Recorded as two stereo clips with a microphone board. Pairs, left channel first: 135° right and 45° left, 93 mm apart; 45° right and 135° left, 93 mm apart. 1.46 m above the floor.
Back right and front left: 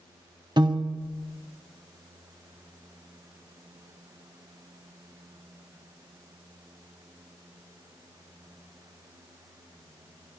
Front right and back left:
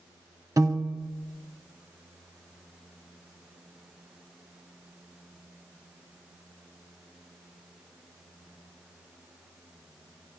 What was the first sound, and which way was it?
A piano, 80° left.